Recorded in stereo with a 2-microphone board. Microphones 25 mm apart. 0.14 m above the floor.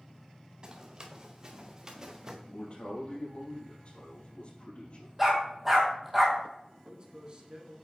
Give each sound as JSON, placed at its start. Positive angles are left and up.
{"t": 0.6, "sound": "running footsteps", "side_deg": -30, "distance_m": 2.0}
{"t": 2.5, "sound": "a man speaking", "side_deg": 45, "distance_m": 4.0}
{"t": 5.2, "sound": "a dog barking", "side_deg": -10, "distance_m": 2.0}
{"t": 6.8, "sound": "a man speaking", "side_deg": -40, "distance_m": 1.9}